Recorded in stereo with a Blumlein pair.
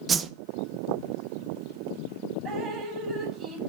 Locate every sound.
0.1 s a whoosh: 15° right, 0.6 m
2.5 s dripping: 20° right, 5 m